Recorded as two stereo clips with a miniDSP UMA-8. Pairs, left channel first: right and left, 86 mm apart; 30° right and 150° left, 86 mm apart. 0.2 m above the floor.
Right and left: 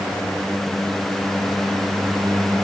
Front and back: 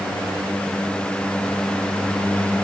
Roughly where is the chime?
I don't hear a chime.